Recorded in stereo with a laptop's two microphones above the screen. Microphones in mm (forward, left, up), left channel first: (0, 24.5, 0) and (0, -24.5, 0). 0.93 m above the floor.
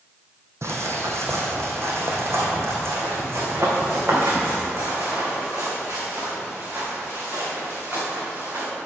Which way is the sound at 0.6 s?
60° right (ahead or behind).